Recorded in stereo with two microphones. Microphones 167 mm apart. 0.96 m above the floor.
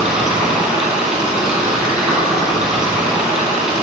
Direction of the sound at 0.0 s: 5° right (ahead or behind).